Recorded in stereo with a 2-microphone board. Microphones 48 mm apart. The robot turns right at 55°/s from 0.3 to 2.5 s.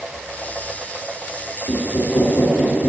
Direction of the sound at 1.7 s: 60° left.